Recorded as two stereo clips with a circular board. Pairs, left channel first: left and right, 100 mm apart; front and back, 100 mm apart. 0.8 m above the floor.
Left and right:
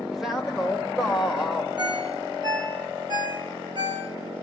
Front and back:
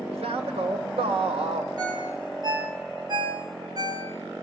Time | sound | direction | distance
0.1 | a man speaking | 175° right | 3 m
1.8 | a ringtone | 130° right | 4.5 m